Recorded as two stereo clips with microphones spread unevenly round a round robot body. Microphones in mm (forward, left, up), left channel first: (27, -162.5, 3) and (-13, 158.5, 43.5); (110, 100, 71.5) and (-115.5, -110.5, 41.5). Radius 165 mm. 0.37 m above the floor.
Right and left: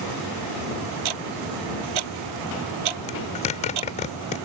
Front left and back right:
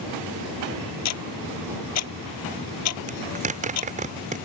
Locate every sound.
1.1 s ticking: 85° left
3.1 s a zipper: 115° right